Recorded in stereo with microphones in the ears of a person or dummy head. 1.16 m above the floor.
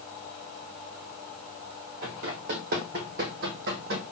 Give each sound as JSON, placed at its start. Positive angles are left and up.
{"t": 2.0, "sound": "running footsteps", "side_deg": -40, "distance_m": 1.8}